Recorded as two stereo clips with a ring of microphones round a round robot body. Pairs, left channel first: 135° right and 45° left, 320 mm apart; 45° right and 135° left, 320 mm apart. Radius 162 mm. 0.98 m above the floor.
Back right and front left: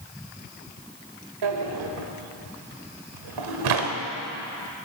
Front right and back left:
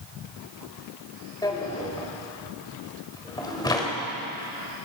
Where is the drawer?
35° left, 1.4 m.